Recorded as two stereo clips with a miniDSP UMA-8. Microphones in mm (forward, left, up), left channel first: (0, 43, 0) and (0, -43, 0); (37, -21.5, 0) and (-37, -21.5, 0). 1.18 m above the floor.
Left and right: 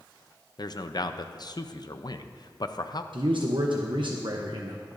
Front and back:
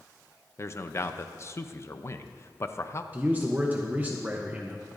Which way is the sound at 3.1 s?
110° right.